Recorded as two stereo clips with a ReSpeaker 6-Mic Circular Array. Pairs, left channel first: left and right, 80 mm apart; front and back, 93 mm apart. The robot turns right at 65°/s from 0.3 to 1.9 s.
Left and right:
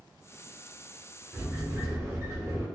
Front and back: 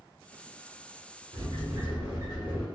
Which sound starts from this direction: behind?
A sliding door, at 1.3 s.